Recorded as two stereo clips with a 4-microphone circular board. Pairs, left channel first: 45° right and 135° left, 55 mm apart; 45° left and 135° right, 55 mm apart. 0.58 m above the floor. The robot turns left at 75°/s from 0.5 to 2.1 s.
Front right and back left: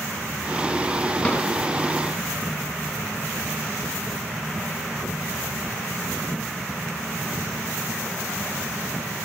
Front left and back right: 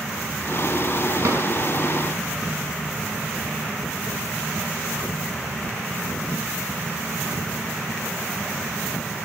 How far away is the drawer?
About 2 m.